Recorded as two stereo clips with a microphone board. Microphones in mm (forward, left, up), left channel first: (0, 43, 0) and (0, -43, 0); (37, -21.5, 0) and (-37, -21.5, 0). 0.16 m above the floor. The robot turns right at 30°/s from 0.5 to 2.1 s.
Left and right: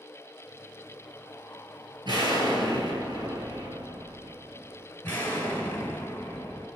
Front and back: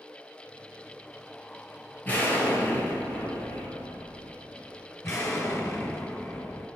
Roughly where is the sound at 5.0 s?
Ahead left.